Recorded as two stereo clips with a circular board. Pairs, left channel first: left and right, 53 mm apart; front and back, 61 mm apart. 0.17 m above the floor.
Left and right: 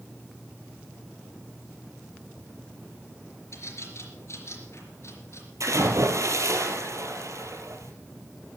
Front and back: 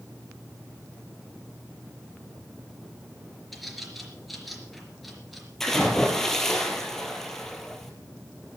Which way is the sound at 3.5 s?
90° left.